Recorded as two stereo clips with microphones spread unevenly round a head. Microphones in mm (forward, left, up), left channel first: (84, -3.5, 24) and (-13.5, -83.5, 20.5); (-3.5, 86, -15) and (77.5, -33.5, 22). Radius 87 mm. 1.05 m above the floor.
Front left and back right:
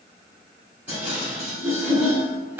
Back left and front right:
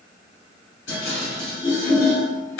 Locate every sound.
0.9 s dishes clattering: 140° left, 1.7 m